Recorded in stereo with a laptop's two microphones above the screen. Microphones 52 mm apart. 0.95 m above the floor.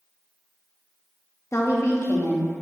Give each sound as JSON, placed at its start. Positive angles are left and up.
{"t": 1.5, "sound": "a woman speaking", "side_deg": 55, "distance_m": 1.2}